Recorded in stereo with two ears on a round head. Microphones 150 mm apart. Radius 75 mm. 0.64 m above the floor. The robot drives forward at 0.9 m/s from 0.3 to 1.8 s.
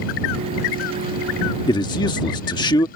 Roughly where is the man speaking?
Left.